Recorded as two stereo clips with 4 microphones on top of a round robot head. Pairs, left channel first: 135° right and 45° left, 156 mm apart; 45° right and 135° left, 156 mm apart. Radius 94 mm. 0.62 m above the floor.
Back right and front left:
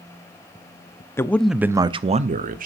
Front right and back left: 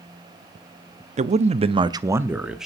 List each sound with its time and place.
1.2 s a man speaking: 155° left, 0.7 m; by 2.7 s 45° left, 1.0 m